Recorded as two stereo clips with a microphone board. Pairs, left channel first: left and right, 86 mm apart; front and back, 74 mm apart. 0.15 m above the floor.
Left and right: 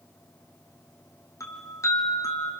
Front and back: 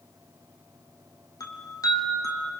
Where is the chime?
35° left, 3 m.